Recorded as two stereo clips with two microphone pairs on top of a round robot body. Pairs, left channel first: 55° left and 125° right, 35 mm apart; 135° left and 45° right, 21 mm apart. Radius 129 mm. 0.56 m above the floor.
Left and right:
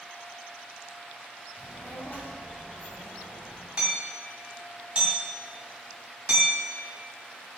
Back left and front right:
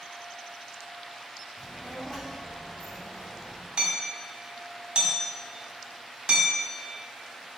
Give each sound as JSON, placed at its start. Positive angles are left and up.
{"t": 1.6, "sound": "a child speaking", "azimuth_deg": 75, "distance_m": 3.0}
{"t": 3.8, "sound": "hammering", "azimuth_deg": -70, "distance_m": 2.0}